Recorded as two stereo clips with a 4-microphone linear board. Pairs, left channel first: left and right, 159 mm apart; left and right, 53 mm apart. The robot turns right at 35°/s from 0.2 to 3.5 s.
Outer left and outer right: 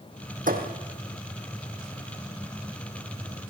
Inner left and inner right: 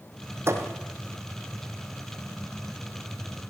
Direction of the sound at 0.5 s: 60° right (ahead or behind).